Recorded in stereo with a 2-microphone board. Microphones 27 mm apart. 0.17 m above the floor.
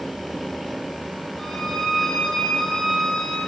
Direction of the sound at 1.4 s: 15° left (ahead or behind).